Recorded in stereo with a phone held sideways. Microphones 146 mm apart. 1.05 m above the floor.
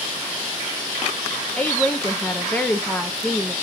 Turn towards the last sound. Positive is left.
turn(degrees=10)  # may be behind; listen again after turning